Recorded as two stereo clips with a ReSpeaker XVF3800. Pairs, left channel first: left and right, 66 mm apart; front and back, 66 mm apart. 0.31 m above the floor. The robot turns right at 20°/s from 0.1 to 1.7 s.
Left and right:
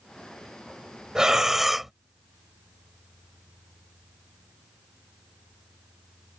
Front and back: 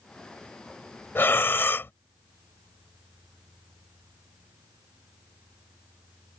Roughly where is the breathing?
Ahead.